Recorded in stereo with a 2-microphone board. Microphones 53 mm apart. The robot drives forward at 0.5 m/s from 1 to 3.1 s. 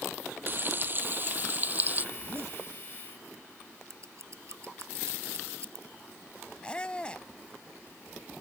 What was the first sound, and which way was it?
Frying, 40° right (ahead or behind).